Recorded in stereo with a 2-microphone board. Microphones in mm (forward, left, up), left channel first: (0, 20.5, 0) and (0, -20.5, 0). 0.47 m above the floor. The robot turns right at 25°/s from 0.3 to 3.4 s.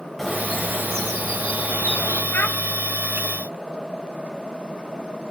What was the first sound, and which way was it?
A bird, 5° left.